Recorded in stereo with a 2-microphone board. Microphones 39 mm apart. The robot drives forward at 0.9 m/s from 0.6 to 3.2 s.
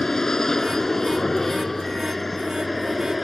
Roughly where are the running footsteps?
I don't hear running footsteps.